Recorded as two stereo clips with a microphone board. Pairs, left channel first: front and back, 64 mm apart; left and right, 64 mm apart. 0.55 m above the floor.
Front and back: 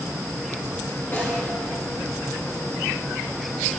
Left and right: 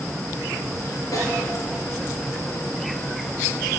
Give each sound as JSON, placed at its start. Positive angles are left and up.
{"t": 1.1, "sound": "a snare drum", "azimuth_deg": 55, "distance_m": 3.5}